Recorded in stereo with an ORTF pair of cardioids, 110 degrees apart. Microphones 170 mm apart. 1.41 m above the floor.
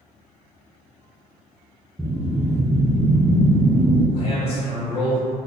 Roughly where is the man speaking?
Ahead left.